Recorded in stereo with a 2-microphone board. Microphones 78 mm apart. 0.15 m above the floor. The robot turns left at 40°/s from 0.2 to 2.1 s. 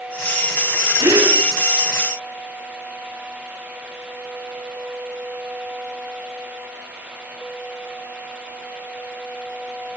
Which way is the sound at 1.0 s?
80° right.